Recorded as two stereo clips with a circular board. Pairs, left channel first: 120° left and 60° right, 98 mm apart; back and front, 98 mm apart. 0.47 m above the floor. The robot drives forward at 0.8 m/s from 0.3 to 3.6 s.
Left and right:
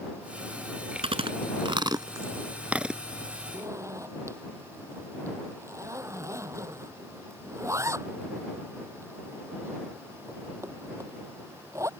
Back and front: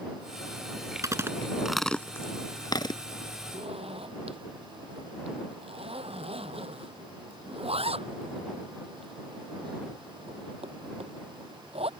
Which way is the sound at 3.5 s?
Straight ahead.